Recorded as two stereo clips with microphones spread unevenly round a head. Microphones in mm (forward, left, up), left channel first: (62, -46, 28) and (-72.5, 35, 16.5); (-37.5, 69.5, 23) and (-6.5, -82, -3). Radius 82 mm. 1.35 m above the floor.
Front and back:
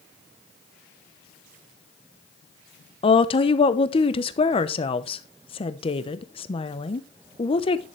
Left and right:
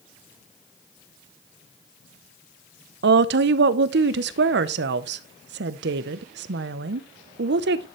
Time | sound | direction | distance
3.0 | a woman speaking | 90° right | 0.8 m